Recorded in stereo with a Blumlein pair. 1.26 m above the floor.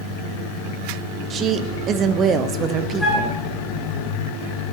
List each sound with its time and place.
1.3 s a woman speaking: 25° right, 0.8 m
3.0 s a flute: straight ahead, 3 m